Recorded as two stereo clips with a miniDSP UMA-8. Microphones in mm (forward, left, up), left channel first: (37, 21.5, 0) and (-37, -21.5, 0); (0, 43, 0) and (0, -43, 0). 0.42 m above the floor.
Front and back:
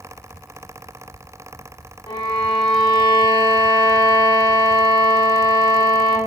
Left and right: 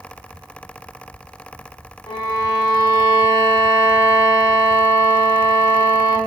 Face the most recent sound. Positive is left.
turn(degrees=60)